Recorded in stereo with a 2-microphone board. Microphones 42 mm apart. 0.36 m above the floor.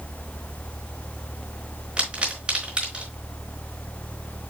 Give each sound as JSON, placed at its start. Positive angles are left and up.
{"t": 2.0, "sound": "a pop", "side_deg": -25, "distance_m": 4.5}